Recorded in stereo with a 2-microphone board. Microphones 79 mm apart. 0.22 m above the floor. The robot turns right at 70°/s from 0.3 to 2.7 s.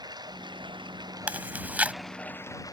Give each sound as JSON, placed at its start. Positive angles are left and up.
{"t": 0.0, "sound": "running water", "azimuth_deg": -120}
{"t": 1.3, "sound": "chewing", "side_deg": -20}